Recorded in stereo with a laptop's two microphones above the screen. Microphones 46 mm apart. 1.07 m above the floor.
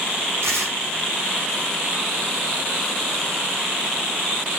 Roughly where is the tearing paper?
Right.